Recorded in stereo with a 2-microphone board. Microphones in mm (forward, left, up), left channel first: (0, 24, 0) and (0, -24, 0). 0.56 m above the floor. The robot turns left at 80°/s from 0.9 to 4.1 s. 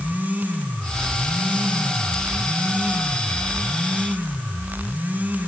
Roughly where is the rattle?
No rattle in this recording.